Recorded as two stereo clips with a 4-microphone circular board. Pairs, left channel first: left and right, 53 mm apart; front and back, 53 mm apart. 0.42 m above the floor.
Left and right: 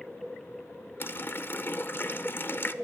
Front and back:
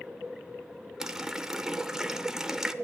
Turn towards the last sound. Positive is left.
turn(degrees=105)